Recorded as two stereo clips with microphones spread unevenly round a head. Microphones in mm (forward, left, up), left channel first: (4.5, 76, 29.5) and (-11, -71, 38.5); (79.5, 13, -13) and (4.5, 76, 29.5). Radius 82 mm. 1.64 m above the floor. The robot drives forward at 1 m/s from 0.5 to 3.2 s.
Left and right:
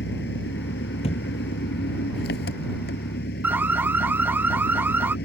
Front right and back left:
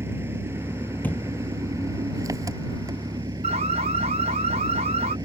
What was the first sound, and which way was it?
An engine running, 85° left.